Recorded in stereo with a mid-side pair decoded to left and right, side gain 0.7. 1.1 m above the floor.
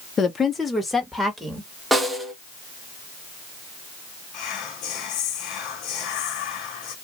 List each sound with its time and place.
0.2 s a woman speaking: 25° left, 0.6 m; by 1.7 s 5° right, 1.5 m
1.9 s a snare drum: 10° right, 0.8 m
4.3 s whispering: 55° left, 0.8 m